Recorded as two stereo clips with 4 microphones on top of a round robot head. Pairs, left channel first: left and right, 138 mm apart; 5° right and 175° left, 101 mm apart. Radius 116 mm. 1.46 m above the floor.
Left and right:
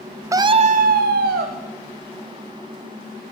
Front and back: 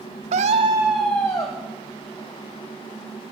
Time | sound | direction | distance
0.3 | a scream | 155° right | 0.5 m